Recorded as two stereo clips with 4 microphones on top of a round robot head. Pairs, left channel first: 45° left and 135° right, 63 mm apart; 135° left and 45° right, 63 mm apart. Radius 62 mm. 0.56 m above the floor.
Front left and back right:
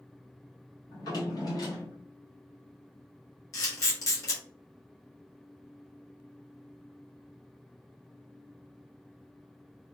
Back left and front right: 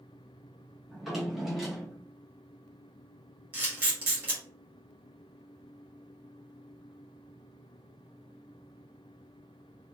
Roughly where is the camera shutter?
Ahead.